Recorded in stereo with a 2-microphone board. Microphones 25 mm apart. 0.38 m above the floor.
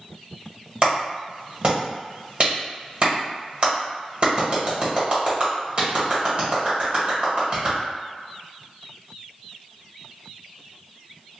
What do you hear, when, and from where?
0.8 s a clap: 50° right (ahead or behind), 1.8 m